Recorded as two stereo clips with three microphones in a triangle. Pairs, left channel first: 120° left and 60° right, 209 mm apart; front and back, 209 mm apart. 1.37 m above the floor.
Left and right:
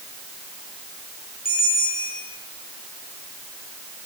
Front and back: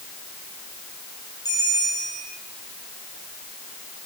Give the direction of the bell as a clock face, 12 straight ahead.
10 o'clock.